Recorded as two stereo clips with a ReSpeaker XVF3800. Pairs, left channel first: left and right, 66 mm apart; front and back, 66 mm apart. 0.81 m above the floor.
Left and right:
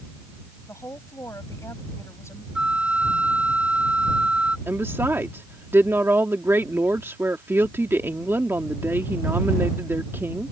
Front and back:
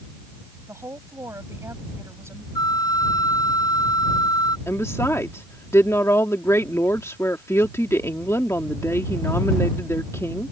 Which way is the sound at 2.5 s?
15° right.